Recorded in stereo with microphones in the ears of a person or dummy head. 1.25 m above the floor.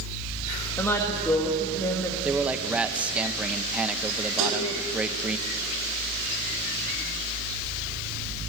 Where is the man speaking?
5° right (ahead or behind), 0.8 m.